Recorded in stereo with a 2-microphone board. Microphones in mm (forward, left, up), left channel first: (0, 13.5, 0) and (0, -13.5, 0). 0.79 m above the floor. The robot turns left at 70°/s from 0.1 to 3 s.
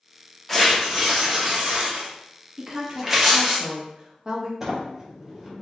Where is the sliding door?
10° right (ahead or behind), 0.9 m.